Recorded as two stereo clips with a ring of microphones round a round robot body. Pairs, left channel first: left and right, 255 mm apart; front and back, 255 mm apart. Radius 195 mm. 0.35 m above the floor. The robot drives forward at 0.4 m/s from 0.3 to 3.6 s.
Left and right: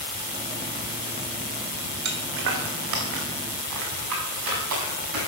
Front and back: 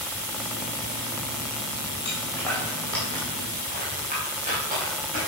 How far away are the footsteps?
About 1.4 m.